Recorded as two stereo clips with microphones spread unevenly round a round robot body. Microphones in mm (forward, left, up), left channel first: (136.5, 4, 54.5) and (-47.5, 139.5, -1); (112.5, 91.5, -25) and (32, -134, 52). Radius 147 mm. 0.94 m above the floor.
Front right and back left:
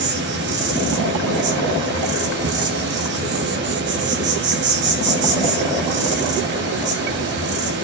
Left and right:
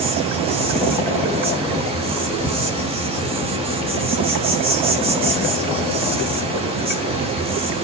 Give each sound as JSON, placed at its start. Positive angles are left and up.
{"t": 0.0, "sound": "an insect", "azimuth_deg": 170, "distance_m": 2.5}